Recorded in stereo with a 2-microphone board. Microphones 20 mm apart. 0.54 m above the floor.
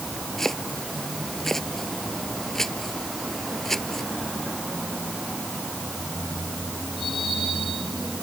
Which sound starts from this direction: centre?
Chopping, at 0.4 s.